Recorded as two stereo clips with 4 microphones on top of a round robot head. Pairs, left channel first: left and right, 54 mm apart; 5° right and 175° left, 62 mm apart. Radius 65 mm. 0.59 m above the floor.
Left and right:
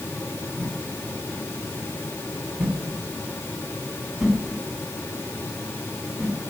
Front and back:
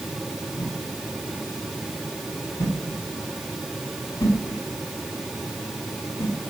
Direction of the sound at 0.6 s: 10° right.